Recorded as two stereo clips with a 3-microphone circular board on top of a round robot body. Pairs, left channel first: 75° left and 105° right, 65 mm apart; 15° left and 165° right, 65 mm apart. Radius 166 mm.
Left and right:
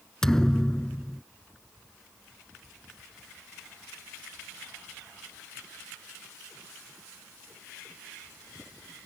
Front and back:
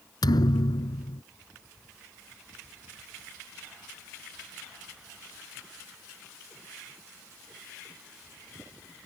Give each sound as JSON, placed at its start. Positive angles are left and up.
{"t": 0.2, "sound": "a thud", "azimuth_deg": -10}